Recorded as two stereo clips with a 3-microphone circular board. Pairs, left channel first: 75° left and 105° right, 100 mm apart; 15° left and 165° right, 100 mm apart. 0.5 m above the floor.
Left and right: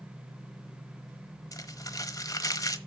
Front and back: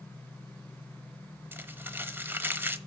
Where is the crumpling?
125° left, 1.1 m.